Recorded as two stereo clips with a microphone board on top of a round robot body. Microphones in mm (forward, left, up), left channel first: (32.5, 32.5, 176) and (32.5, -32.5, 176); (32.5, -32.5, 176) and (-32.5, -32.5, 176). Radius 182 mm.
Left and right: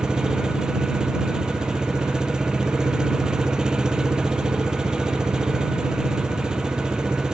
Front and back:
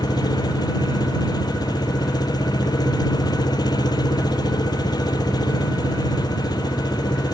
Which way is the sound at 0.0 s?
10° right.